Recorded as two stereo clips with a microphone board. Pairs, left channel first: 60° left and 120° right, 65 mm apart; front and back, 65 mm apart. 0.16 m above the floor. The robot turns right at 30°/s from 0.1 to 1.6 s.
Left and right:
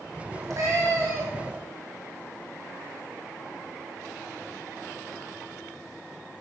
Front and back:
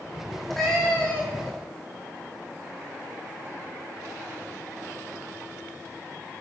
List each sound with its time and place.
0.3 s a cat meowing: 95° right, 4.5 m; by 1.5 s 60° right, 4.5 m